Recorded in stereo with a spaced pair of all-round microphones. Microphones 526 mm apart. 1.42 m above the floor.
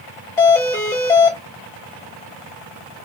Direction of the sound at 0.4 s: 5° left (ahead or behind).